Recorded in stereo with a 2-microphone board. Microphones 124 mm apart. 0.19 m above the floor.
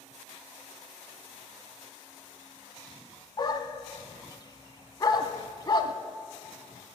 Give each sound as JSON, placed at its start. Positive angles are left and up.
{"t": 3.4, "sound": "a dog barking", "side_deg": 35, "distance_m": 0.6}